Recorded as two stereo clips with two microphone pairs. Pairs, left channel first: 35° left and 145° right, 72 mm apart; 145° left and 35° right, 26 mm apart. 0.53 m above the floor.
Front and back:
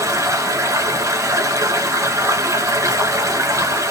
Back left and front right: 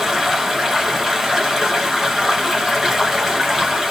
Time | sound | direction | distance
0.0 | running water | 110° right | 1.7 m